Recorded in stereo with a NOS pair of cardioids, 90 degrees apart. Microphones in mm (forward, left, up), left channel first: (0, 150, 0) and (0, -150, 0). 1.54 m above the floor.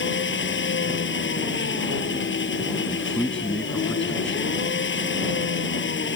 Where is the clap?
I don't hear a clap.